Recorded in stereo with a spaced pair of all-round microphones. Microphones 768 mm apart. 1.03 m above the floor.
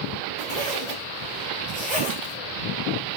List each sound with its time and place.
0.4 s a zipper: 10° right (ahead or behind), 3 m